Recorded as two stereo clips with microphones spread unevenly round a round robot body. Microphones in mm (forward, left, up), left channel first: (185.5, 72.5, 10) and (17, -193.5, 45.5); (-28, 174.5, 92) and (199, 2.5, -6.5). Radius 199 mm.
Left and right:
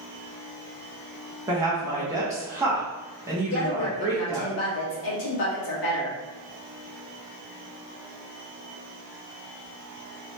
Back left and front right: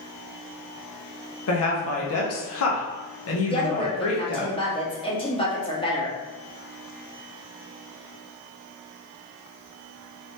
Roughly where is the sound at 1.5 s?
Behind left.